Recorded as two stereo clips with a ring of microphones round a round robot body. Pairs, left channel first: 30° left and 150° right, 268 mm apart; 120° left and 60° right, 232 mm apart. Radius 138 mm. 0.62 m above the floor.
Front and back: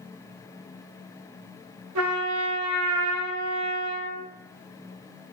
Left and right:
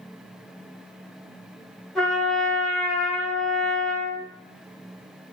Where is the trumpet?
150° right, 1.2 m.